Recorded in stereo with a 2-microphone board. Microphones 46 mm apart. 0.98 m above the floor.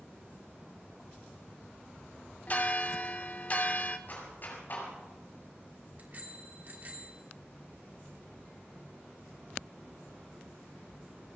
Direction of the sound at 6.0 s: 45° right (ahead or behind).